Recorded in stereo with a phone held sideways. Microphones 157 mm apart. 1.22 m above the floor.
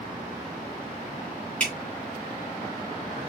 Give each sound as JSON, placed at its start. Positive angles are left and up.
{"t": 1.6, "sound": "dripping", "side_deg": 10, "distance_m": 3.0}